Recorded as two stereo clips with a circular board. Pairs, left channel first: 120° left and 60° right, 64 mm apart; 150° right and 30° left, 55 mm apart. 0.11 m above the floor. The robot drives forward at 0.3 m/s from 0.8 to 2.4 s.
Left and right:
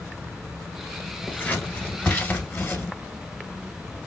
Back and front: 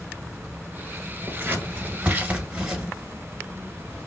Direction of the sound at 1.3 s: 60° left.